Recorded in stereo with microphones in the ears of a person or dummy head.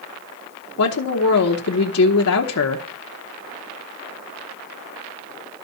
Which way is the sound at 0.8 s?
70° left (ahead or behind).